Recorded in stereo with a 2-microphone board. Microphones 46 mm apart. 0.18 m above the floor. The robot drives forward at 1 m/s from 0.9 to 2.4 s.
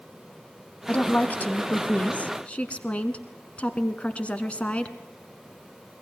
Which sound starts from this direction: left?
A woman speaking, at 0.9 s.